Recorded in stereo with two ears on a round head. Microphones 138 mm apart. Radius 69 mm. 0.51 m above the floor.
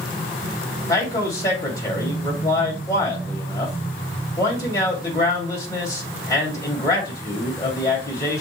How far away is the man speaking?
About 2.5 m.